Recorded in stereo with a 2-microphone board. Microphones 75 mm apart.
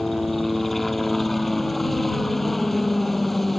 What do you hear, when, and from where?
0.0 s a helicopter: centre (ahead or behind)